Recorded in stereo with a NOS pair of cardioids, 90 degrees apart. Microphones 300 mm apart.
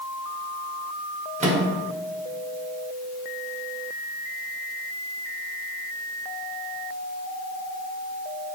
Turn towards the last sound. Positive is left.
turn(degrees=-25)